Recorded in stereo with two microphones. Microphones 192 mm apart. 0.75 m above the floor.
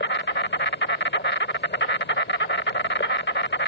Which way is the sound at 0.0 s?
65° left (ahead or behind).